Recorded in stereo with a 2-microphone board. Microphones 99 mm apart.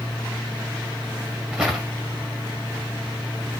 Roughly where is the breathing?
I don't hear breathing.